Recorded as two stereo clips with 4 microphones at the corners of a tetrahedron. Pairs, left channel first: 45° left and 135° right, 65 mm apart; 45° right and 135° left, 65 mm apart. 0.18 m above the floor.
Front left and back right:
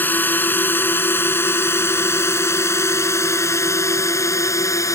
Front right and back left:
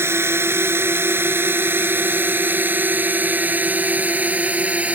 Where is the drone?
100° left; by 5.0 s 70° left.